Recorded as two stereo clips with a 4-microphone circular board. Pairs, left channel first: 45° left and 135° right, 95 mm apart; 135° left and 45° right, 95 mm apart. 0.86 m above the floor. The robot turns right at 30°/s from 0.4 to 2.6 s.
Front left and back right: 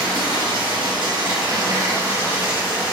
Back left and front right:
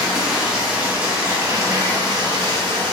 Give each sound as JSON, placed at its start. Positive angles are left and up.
{"t": 0.0, "sound": "running water", "azimuth_deg": -130, "distance_m": 1.1}